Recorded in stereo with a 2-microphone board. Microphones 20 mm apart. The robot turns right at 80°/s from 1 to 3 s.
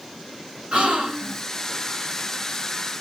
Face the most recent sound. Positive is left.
turn(degrees=85)